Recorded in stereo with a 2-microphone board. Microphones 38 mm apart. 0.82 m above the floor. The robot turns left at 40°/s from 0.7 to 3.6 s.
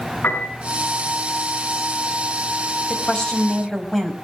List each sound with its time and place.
0.2 s a piano: 65° left (ahead or behind), 7 m
2.9 s a woman speaking: 30° left (ahead or behind), 5 m; by 4.1 s 5° left (ahead or behind), 5 m